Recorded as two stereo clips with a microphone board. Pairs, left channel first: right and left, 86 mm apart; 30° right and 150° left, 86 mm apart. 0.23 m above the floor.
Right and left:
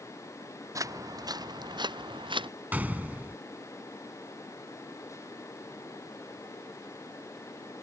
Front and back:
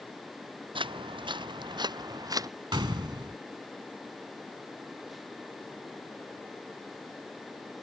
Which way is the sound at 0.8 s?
140° left.